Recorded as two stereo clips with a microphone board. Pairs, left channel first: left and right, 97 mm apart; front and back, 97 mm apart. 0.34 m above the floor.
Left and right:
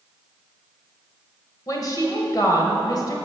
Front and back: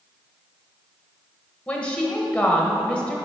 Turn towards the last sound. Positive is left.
turn(degrees=70)